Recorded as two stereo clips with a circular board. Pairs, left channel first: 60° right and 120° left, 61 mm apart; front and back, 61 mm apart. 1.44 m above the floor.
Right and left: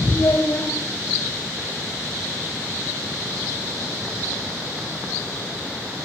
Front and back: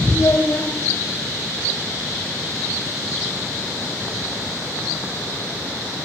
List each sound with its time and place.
0.1 s a child speaking: 40° right, 6.5 m